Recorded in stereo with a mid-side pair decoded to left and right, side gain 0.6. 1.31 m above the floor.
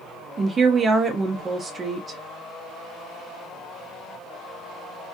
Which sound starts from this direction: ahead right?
A woman speaking, at 0.4 s.